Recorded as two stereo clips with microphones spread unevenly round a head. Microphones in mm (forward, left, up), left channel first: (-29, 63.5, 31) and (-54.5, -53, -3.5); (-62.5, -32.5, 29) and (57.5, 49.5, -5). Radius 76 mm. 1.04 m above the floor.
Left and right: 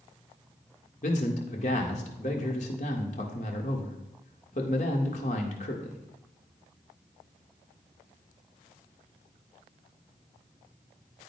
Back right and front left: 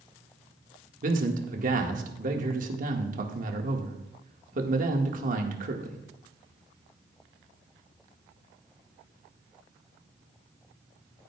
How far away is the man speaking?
About 1.7 m.